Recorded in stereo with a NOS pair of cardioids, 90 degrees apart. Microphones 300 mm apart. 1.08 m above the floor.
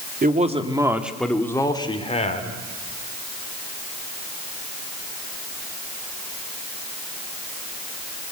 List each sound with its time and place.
0.2 s a man speaking: 30° right, 2 m; by 2.6 s 25° left, 3.5 m